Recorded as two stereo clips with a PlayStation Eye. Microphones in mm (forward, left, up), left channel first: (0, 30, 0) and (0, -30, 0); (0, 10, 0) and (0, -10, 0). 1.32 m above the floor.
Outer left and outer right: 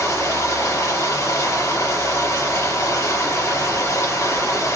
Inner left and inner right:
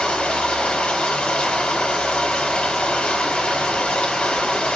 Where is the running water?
65° left (ahead or behind), 7.5 m.